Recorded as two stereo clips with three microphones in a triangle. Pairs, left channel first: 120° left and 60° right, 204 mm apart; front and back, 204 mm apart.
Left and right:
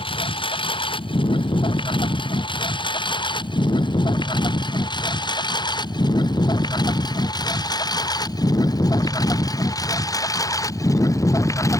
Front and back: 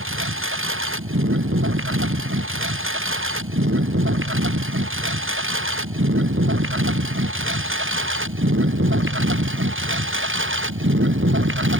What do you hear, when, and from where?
0.0 s a lawn mower: 175° right; by 11.8 s 165° right